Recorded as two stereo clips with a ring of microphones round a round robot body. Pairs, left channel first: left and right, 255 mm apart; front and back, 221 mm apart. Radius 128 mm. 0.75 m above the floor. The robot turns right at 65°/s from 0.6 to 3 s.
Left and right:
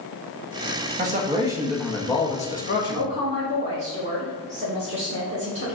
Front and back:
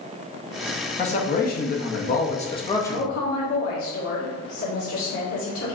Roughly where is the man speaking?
Ahead right.